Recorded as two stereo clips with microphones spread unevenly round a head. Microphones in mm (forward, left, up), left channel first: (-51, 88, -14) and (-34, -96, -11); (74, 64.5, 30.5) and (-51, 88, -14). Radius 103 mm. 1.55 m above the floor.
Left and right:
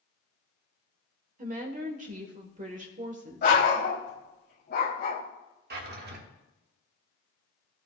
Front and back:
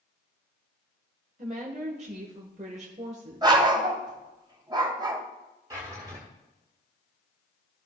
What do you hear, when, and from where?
1.4 s a woman speaking: 135° right, 1.1 m
3.4 s a dog barking: 105° left, 1.9 m
5.7 s a drawer: 110° right, 1.5 m